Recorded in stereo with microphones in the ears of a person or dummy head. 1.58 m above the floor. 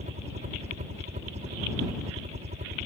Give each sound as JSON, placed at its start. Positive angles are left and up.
{"t": 0.0, "sound": "a helicopter", "side_deg": -35}